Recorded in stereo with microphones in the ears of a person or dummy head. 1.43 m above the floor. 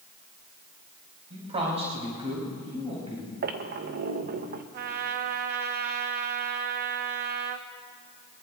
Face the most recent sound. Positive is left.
turn(degrees=-45)  # may be behind; listen again after turning